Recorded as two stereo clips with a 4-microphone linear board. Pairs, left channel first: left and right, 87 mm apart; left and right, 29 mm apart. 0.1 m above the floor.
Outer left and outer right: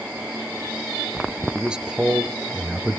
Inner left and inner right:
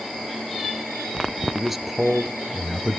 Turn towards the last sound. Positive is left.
turn(degrees=-10)  # may be behind; listen again after turning